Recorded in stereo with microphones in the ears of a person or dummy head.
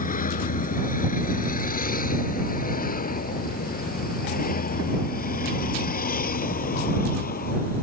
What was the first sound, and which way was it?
A vehicle, 40° left (ahead or behind).